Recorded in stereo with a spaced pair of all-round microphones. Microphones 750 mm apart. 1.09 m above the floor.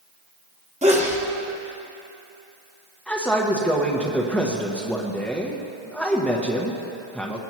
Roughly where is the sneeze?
Centre.